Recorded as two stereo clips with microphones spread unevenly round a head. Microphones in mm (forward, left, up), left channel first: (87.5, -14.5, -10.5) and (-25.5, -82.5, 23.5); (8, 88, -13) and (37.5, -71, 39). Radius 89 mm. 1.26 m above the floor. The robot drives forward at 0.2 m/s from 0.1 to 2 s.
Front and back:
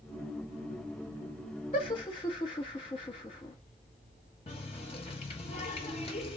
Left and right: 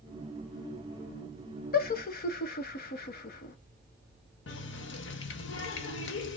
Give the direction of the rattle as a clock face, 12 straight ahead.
I don't hear a rattle.